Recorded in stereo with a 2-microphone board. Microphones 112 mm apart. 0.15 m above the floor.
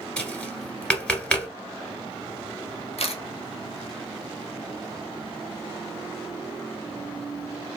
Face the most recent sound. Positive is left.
turn(degrees=65)  # may be behind; listen again after turning